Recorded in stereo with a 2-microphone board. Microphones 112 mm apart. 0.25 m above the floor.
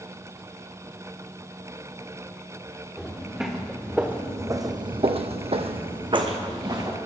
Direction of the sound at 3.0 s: Centre (ahead or behind).